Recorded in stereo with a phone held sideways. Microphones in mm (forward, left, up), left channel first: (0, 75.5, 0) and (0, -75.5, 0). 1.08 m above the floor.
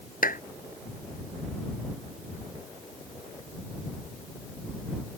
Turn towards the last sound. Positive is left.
turn(degrees=70)  # may be behind; listen again after turning